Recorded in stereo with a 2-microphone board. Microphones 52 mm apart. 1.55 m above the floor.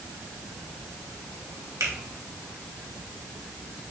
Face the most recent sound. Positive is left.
turn(degrees=-85)